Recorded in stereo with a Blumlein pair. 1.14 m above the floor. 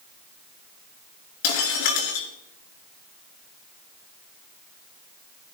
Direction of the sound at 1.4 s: 45° left.